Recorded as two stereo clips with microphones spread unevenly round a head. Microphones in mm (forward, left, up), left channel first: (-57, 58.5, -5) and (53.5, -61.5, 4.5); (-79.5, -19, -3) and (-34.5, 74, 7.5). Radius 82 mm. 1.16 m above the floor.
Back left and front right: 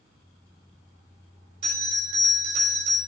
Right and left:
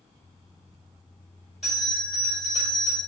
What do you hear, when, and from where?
1.6 s a bell: 25° right, 4 m